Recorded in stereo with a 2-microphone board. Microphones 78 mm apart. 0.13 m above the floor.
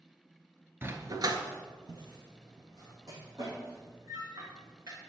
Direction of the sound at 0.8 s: 25° right (ahead or behind).